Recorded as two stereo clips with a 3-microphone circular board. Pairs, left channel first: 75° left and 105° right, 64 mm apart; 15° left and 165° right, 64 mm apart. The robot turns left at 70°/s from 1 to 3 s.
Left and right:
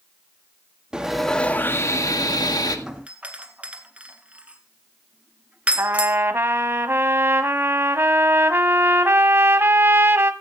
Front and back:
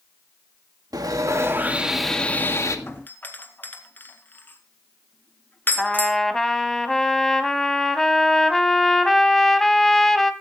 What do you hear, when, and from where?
0.9 s sawing: 175° left, 1.8 m; by 2.8 s 55° left, 1.8 m
2.9 s a doorbell: 30° right, 1.9 m; by 6.2 s 40° right, 1.9 m
5.8 s a trumpet: 70° right, 1.4 m